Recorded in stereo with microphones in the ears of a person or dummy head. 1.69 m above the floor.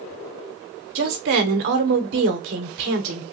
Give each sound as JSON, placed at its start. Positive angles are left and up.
{"t": 0.9, "sound": "a woman speaking", "side_deg": -55, "distance_m": 0.9}